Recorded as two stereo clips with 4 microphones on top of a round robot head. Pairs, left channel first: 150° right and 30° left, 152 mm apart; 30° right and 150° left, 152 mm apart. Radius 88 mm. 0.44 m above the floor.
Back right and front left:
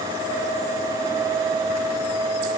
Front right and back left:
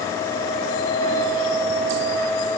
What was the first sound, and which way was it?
Only background noise.